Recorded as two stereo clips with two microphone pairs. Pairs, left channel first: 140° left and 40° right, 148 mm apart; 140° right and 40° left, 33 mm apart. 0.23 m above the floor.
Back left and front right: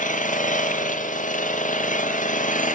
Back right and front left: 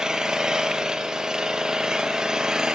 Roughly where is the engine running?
Left.